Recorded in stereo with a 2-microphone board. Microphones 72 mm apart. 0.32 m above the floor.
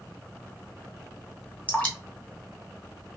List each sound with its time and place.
1.7 s dripping: 15° left (ahead or behind), 1.2 m